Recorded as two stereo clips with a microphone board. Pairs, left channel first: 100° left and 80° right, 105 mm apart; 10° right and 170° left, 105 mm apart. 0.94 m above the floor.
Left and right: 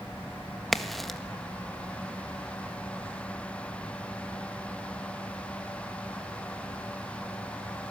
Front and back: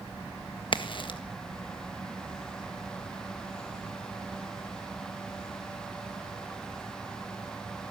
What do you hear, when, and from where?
0.7 s a crack: 10° left, 1.4 m